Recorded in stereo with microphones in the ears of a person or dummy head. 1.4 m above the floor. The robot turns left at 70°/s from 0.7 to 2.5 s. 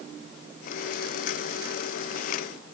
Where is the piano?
No piano in this recording.